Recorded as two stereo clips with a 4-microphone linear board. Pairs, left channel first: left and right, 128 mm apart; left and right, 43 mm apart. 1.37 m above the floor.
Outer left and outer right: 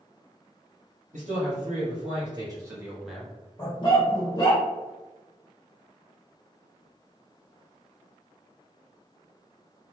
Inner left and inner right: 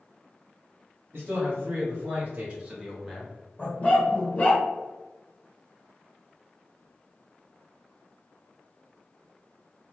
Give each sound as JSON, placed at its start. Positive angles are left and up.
{"t": 1.1, "sound": "a man speaking", "side_deg": -65, "distance_m": 1.2}
{"t": 3.6, "sound": "a dog barking", "side_deg": 30, "distance_m": 0.9}